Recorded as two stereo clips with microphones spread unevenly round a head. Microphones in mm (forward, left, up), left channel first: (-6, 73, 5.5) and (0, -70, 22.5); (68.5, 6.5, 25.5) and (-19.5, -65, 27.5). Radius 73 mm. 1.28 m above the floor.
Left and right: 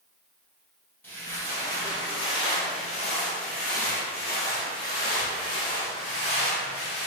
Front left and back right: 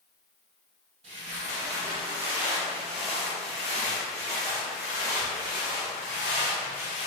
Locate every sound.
1.0 s footsteps: 170° left, 2.0 m; by 7.1 s 85° left, 3 m